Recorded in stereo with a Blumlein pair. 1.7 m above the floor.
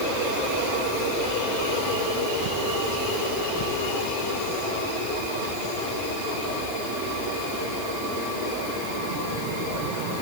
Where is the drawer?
No drawer in this recording.